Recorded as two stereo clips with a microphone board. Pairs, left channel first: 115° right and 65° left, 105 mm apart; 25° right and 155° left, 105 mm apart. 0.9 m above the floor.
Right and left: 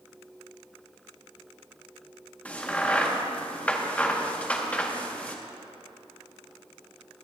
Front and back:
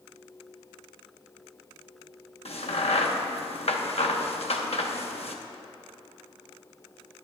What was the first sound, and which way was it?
A crack, 35° right.